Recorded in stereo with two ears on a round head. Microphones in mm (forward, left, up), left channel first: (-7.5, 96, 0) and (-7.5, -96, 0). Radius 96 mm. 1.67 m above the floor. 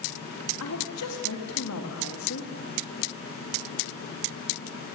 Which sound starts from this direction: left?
A woman speaking, at 0.6 s.